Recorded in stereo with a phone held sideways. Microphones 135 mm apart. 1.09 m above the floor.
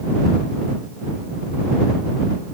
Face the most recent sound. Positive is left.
No sound to turn to.